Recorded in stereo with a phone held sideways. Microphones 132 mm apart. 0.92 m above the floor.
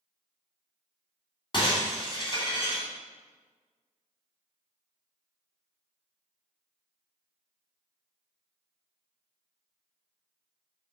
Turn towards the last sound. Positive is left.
turn(degrees=40)  # may be behind; listen again after turning